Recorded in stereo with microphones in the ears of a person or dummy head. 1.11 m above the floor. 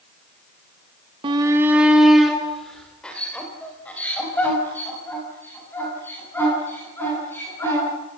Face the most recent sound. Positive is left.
turn(degrees=15)  # may be behind; listen again after turning